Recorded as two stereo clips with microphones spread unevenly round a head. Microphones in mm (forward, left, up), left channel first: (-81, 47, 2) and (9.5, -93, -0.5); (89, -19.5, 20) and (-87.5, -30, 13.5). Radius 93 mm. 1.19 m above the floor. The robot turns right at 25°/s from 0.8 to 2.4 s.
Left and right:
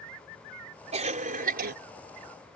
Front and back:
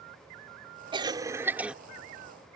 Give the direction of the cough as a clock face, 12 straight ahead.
4 o'clock.